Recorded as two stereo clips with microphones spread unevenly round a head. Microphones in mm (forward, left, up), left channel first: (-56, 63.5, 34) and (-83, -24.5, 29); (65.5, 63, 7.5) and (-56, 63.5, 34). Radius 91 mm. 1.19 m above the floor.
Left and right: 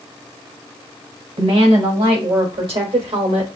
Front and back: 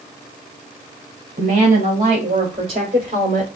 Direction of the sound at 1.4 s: 125° right.